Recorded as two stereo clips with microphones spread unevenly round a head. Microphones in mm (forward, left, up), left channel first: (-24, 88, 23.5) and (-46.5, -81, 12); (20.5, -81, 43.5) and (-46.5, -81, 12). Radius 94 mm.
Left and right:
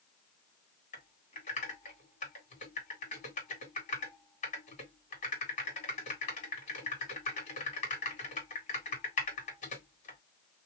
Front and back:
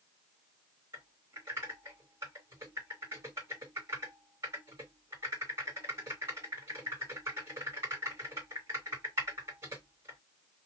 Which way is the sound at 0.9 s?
125° left.